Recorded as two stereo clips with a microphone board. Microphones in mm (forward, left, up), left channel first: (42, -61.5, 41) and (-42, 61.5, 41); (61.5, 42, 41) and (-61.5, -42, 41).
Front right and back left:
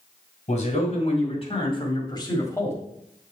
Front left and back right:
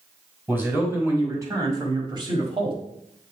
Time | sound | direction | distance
0.5 | a man speaking | 70° right | 2.5 m